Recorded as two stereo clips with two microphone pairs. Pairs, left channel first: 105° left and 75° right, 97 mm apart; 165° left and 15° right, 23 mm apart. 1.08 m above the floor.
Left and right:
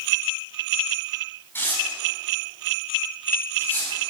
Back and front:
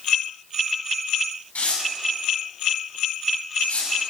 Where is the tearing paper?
170° left, 6 m.